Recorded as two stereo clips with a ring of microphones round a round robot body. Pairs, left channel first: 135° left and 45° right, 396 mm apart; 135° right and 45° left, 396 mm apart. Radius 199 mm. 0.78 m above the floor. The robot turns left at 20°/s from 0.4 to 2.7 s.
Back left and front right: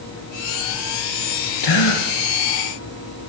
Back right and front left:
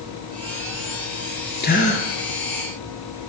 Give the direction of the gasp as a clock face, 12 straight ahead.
7 o'clock.